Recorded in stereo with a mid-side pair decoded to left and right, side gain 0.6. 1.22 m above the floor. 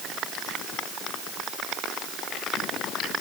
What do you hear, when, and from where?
Only background noise.